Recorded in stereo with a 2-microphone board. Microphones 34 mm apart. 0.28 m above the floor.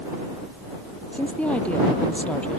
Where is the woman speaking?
40° left (ahead or behind).